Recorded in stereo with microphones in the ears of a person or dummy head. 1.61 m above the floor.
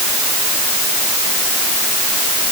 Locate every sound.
Only background noise.